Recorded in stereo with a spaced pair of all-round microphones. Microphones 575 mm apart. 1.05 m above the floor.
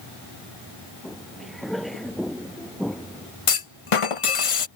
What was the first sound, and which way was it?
Footsteps, centre (ahead or behind).